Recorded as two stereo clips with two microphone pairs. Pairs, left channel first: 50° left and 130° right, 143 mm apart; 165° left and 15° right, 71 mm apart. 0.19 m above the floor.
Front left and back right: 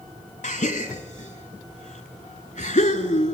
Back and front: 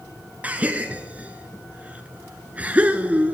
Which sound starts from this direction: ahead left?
A gasp, at 0.4 s.